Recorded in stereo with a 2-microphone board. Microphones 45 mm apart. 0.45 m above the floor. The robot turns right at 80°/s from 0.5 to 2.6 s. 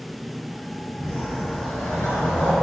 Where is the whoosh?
20° left, 1.3 m; by 2.5 s 145° left, 1.3 m.